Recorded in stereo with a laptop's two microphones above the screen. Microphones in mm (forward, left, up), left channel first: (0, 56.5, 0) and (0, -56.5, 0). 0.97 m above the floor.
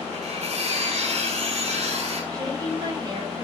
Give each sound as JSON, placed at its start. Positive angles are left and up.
{"t": 0.1, "sound": "cutlery clinking", "side_deg": -90, "distance_m": 5.0}
{"t": 2.3, "sound": "a woman speaking", "side_deg": -40, "distance_m": 6.0}